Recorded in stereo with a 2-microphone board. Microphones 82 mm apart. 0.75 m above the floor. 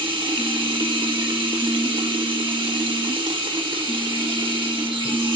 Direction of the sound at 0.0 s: 75° right (ahead or behind).